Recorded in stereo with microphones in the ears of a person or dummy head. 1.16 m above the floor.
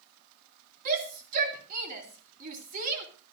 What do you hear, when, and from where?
0.8 s a shout: 45° right (ahead or behind), 3 m